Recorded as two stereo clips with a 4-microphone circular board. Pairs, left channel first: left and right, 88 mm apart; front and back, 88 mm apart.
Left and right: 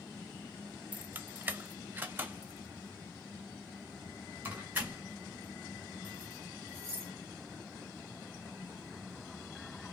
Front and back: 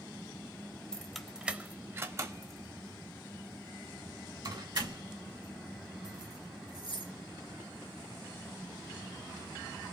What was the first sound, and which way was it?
Keys jangling, 65° right.